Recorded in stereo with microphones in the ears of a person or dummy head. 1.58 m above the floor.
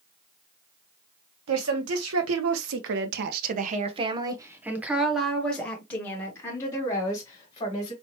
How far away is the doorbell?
I don't hear a doorbell.